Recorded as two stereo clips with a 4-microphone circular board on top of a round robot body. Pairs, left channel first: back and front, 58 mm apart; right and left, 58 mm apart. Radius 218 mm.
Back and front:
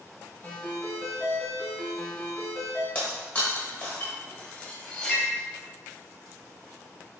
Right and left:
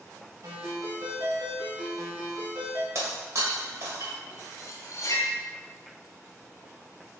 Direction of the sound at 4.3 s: 110° right.